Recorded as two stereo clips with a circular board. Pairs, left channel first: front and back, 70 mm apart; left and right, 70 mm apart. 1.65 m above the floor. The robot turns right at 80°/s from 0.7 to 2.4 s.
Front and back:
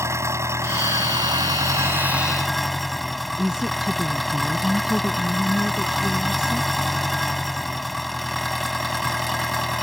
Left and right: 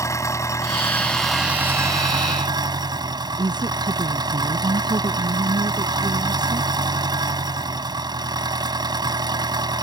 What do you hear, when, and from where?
0.0 s an engine running: 135° left; by 9.8 s 90° right
3.4 s a woman speaking: 100° right